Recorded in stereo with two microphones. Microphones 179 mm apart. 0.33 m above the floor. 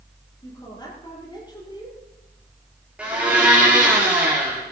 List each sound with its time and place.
0.4 s a woman speaking: 25° left (ahead or behind), 6.5 m
3.0 s a blender: 5° right (ahead or behind), 6 m